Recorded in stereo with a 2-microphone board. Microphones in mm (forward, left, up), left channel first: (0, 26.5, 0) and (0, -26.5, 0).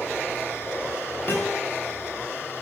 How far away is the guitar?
About 5.5 m.